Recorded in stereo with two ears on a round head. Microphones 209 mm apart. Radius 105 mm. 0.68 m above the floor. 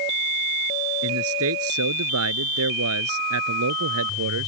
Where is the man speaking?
70° right (ahead or behind).